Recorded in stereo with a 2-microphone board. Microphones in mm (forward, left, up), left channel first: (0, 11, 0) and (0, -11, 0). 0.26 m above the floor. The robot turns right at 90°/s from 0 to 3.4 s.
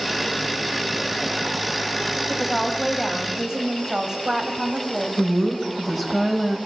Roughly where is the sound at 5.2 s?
Centre.